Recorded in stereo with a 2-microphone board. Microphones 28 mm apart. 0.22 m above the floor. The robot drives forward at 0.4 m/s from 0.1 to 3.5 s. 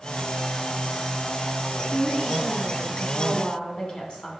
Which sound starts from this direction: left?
A woman speaking, at 1.9 s.